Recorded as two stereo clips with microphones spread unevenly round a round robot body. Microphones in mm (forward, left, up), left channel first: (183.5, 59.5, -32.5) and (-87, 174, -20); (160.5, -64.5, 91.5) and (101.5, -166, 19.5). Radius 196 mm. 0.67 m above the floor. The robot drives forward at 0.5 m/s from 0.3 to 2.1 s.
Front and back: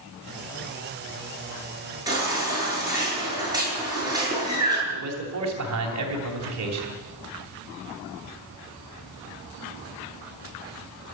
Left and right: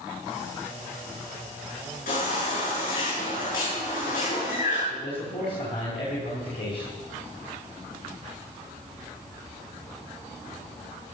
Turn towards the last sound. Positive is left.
turn(degrees=125)